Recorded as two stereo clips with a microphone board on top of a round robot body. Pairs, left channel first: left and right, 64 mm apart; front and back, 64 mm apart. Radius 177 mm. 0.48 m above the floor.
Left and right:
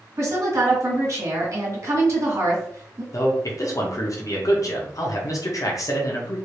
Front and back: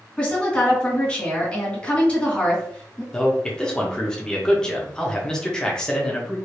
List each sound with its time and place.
0.2 s a woman speaking: 70° right, 2.5 m
3.1 s a man speaking: 80° left, 1.2 m